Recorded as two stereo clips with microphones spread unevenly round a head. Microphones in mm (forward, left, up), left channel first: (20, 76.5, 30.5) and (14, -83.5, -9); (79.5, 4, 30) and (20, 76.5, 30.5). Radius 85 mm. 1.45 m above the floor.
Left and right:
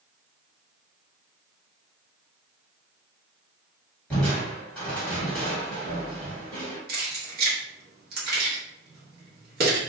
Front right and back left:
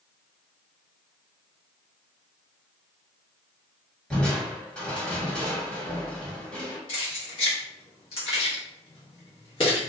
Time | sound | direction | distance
4.1 | crushing | 25° left | 1.4 m
6.9 | keys jangling | 60° right | 0.9 m